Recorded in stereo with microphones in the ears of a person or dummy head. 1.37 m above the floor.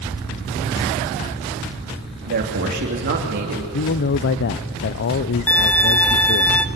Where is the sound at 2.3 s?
50° right (ahead or behind), 3 m.